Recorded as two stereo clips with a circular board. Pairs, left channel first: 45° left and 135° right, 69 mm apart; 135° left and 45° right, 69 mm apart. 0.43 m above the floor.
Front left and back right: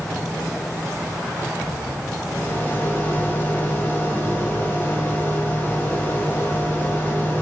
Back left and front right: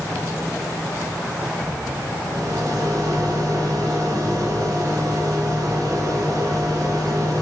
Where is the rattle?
20° right, 0.8 m.